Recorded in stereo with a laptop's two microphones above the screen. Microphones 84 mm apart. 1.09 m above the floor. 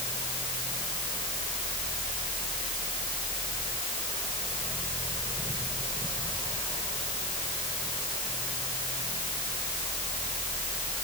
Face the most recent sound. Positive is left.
turn(degrees=80)